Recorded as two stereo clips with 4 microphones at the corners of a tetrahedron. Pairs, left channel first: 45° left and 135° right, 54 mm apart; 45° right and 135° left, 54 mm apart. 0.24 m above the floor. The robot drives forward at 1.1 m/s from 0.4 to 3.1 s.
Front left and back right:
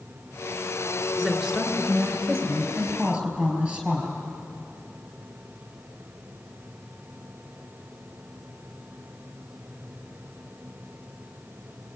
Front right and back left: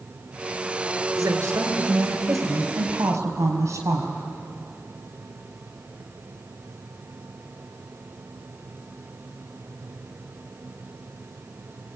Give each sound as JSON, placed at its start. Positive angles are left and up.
{"t": 1.2, "sound": "a woman speaking", "azimuth_deg": 150, "distance_m": 3.0}